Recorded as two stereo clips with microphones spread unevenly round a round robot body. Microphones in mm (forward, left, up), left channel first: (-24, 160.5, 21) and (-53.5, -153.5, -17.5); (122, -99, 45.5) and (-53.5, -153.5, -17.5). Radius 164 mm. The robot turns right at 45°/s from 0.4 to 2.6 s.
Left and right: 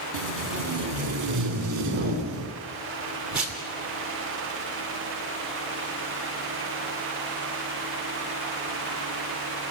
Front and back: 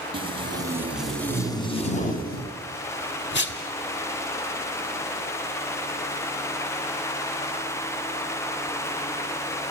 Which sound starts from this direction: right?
Tape being pulled, at 0.1 s.